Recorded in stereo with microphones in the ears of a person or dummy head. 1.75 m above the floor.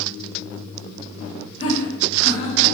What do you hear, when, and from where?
1.6 s laughter: 35° left (ahead or behind), 3.5 m; by 2.8 s 45° left (ahead or behind), 3.5 m